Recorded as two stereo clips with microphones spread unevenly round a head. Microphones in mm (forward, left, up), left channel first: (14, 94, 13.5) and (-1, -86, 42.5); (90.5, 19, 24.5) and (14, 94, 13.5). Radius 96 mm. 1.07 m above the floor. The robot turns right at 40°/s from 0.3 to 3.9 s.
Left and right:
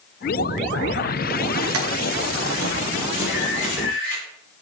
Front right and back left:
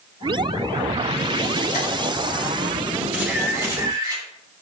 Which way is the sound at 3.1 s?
55° left.